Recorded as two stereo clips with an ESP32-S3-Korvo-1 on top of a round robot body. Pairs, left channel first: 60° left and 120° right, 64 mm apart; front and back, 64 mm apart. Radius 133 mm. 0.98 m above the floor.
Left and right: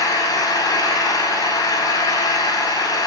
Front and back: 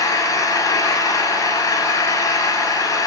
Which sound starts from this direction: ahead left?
An engine running, at 0.0 s.